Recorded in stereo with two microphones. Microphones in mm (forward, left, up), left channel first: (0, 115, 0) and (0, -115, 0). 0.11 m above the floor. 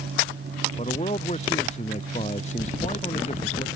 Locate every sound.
0.8 s a man speaking: 30° left (ahead or behind)